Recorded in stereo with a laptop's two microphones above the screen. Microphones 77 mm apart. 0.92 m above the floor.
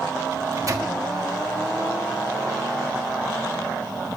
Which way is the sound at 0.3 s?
45° right (ahead or behind).